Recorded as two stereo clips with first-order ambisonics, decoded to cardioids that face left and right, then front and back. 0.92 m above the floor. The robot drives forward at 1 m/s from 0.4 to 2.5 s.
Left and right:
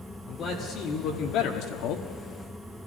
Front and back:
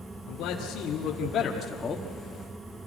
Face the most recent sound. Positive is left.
turn(degrees=100)